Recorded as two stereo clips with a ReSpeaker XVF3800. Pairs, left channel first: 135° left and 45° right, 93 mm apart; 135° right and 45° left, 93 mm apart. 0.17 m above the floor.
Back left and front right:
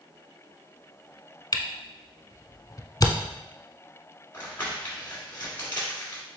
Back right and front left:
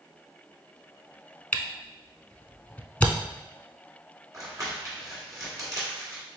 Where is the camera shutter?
160° left, 0.5 m.